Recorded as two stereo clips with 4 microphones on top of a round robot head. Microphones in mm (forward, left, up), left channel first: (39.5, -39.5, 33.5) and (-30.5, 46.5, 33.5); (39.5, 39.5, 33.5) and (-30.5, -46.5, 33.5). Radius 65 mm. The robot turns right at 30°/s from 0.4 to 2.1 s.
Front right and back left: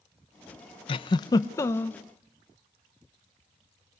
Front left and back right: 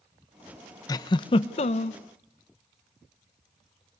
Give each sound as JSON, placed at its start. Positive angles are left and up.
{"t": 0.9, "sound": "a giggle", "azimuth_deg": -10, "distance_m": 0.6}